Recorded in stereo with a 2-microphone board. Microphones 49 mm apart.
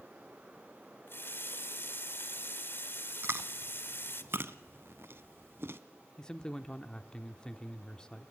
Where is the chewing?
55° right (ahead or behind), 0.8 m.